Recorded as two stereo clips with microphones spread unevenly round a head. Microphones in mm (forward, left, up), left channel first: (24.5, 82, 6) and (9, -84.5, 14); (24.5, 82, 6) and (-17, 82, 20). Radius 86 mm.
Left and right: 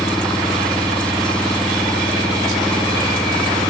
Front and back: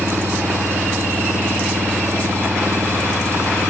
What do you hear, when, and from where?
0.0 s an engine running: 170° left